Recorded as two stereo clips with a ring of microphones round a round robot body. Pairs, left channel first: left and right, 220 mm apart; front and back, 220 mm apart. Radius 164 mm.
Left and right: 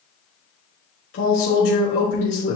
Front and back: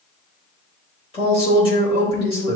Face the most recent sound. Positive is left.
turn(degrees=65)